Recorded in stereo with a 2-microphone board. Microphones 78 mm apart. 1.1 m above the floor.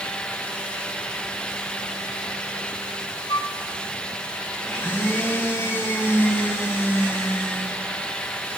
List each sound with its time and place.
3.3 s a flute: 70° left (ahead or behind), 1.6 m
4.6 s a blender: 30° left (ahead or behind), 5.5 m